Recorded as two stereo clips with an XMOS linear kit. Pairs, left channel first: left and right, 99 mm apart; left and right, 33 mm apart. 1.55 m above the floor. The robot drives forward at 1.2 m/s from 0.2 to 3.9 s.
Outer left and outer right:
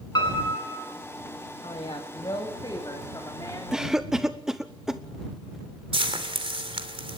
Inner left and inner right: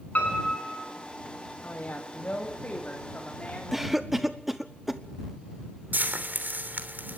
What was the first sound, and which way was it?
A piano, 45° left (ahead or behind).